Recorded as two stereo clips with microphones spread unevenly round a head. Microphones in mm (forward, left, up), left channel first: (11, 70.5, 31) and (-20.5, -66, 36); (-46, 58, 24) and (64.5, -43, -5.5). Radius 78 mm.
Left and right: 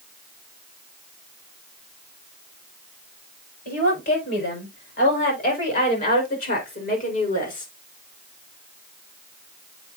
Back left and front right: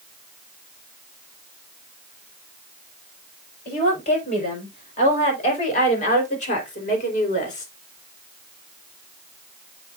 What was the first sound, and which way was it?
A woman speaking, 95° left.